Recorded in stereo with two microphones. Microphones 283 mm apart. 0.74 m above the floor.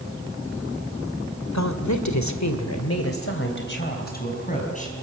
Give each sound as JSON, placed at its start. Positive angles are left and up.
{"t": 1.5, "sound": "a woman speaking", "side_deg": 65, "distance_m": 2.0}